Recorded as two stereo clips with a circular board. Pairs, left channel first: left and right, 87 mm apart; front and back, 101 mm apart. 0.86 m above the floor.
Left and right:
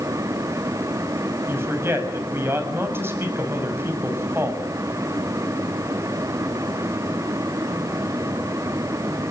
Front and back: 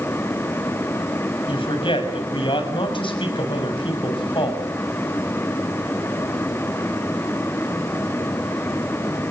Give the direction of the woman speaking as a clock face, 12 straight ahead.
1 o'clock.